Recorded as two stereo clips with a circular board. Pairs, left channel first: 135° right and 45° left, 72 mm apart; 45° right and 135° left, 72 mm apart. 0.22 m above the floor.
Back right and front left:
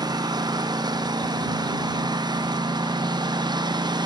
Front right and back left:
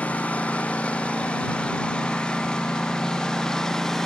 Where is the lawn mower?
25° left; by 4.1 s 35° left.